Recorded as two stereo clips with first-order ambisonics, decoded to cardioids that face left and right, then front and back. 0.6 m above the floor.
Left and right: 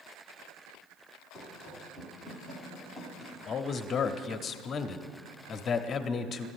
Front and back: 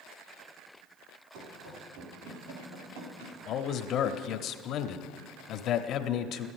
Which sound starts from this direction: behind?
Running footsteps, at 1.3 s.